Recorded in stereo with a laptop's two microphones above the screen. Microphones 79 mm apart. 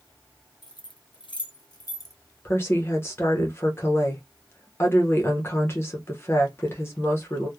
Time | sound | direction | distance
0.6 | keys jangling | 55° left (ahead or behind) | 0.7 m
2.5 | a woman speaking | 30° left (ahead or behind) | 0.8 m